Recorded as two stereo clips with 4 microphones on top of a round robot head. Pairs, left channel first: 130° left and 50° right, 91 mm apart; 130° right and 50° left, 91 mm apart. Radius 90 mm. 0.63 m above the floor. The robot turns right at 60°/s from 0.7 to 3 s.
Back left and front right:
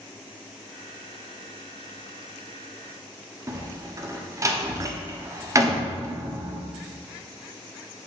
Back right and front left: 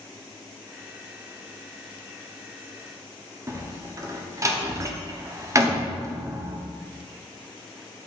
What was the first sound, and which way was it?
A door slam, straight ahead.